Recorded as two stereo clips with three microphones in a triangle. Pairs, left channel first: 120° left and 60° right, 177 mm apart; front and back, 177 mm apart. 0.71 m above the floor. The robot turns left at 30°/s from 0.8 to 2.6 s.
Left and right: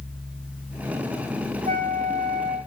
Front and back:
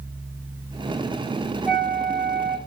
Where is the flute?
170° right, 2.5 m; by 2.6 s 160° left, 2.5 m.